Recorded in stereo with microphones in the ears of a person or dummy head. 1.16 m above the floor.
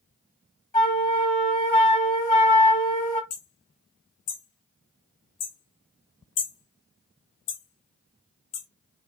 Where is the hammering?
35° left (ahead or behind), 0.8 m.